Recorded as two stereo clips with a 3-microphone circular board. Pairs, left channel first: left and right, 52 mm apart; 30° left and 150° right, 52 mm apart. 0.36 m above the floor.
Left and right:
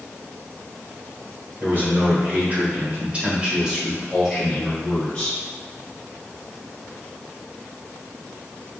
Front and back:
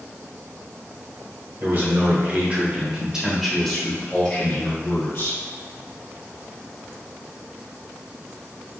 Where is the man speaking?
125° right, 1.8 m; by 5.4 s 20° left, 1.7 m.